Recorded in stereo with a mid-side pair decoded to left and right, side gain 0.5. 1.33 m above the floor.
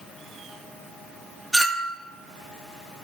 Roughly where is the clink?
Ahead.